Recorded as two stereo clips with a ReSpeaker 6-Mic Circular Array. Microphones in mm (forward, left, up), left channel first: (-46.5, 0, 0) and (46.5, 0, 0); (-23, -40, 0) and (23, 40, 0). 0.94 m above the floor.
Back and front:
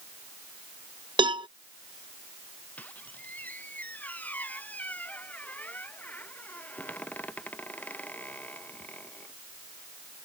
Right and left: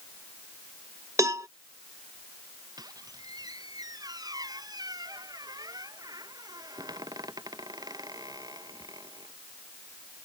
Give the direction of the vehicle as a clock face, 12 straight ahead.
I don't hear a vehicle.